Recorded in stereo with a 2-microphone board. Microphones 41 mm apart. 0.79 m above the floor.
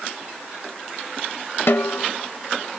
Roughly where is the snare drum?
Left.